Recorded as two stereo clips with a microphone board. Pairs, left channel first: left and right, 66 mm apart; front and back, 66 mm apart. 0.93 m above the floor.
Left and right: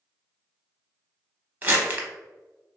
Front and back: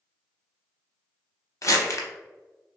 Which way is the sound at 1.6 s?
35° right.